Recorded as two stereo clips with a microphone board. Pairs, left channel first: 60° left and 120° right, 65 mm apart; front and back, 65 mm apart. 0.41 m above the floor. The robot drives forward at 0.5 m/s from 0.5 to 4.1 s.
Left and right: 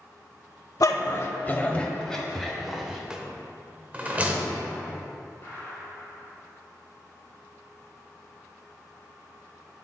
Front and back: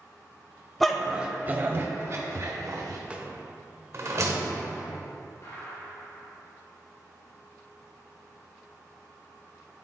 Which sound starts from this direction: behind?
A rattle, at 3.1 s.